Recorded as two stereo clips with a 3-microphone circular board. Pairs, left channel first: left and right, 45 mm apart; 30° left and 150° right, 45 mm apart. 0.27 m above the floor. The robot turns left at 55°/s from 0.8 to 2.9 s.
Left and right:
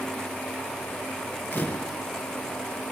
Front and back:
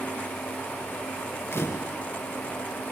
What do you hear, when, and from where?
1.5 s a camera shutter: 45° left, 3.5 m; by 2.0 s 20° left, 3.5 m